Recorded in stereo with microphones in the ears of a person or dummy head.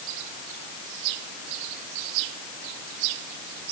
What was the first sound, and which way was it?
Only background noise.